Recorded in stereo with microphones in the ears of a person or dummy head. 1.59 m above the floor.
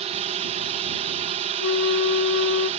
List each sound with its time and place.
0.0 s a drone: 30° right (ahead or behind)
1.6 s a flute: 65° left (ahead or behind)